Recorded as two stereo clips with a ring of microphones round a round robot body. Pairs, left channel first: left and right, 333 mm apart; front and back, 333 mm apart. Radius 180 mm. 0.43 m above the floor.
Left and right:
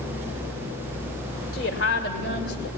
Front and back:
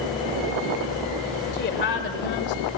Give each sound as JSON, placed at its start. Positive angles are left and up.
{"t": 1.5, "sound": "a woman speaking", "azimuth_deg": 50, "distance_m": 2.0}